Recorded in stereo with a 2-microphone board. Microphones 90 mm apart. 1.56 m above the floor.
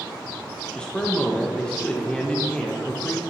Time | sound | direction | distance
0.7 | a man speaking | 10° left (ahead or behind) | 0.7 m